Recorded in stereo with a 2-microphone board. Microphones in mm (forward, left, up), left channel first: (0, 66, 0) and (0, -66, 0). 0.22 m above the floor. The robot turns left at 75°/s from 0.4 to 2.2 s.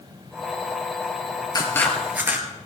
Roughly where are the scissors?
Ahead left.